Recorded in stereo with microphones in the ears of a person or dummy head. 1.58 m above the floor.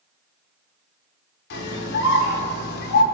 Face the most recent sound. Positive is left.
turn(degrees=65)  # may be behind; listen again after turning